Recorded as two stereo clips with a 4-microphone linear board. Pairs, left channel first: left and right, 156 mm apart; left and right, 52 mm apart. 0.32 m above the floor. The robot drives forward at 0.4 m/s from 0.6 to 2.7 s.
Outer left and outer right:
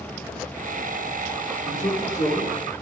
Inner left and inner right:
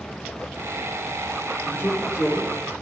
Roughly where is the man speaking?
Left.